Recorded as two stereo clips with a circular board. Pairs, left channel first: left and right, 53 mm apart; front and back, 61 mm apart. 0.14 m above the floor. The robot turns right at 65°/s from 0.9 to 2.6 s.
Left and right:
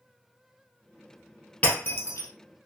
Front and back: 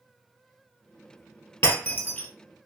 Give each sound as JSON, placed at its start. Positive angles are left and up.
{"t": 1.6, "sound": "breaking glass", "azimuth_deg": 35, "distance_m": 1.8}